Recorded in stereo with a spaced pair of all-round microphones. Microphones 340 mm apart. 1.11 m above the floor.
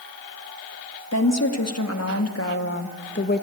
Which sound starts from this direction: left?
A woman speaking, at 1.1 s.